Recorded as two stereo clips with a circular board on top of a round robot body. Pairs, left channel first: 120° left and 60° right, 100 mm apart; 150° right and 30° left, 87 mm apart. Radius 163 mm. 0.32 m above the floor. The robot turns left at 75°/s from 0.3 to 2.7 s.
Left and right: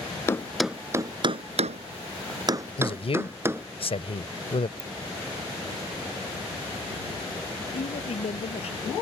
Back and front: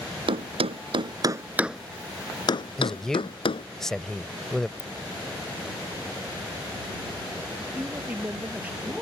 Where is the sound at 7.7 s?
105° left.